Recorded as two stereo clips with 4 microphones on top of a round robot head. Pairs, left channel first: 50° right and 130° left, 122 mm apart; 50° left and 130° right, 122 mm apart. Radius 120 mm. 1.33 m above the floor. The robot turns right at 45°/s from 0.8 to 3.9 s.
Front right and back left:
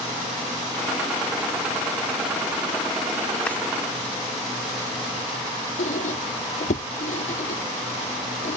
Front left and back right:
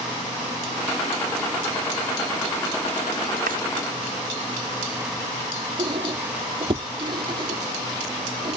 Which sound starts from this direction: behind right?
A drawer, at 3.5 s.